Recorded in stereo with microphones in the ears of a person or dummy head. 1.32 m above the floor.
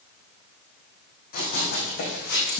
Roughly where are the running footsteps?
Left.